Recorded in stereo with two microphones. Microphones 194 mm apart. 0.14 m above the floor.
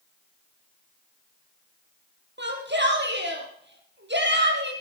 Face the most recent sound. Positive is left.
turn(degrees=-65)  # may be behind; listen again after turning